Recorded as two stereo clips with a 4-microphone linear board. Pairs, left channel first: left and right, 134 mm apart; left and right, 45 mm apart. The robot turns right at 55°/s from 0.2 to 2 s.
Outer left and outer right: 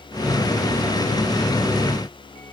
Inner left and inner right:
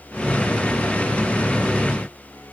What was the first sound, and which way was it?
Only background noise.